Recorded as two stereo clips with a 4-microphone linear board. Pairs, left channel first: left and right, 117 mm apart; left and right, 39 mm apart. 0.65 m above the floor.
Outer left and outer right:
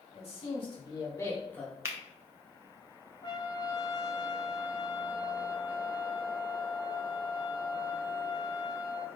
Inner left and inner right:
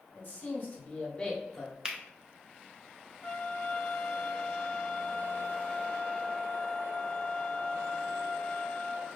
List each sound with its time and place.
0.1 s a man speaking: 60° left (ahead or behind), 1.7 m; by 1.8 s 5° left (ahead or behind), 1.5 m
1.9 s a finger snap: 25° right (ahead or behind), 0.7 m
3.2 s a trumpet: 40° left (ahead or behind), 1.1 m